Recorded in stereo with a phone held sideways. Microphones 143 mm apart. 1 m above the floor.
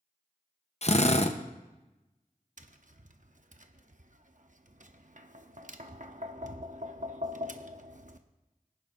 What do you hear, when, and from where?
0.8 s a drill: 50° left (ahead or behind), 0.8 m
2.6 s tapping: 60° right (ahead or behind), 0.8 m